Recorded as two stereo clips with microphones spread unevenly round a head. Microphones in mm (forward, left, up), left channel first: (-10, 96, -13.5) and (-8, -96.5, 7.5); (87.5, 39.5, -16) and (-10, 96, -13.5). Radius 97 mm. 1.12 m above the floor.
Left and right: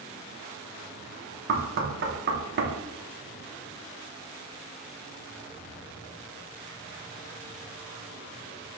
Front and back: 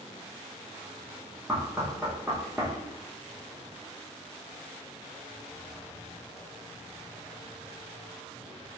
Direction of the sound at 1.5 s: 125° right.